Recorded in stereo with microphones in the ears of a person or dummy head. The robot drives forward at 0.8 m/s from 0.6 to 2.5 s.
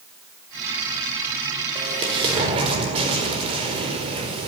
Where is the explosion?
25° right (ahead or behind), 5.5 m; by 4.5 s 30° right (ahead or behind), 5 m.